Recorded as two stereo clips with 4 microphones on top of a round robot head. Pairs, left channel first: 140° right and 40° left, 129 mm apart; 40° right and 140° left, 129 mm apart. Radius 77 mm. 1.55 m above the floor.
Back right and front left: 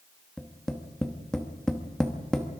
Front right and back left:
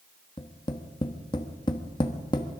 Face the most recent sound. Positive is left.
turn(degrees=-60)